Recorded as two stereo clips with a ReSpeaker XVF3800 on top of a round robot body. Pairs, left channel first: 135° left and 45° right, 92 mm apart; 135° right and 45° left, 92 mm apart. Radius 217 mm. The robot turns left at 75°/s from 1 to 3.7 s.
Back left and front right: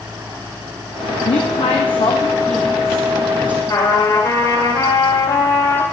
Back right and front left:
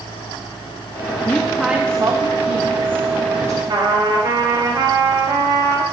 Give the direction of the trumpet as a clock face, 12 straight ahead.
9 o'clock.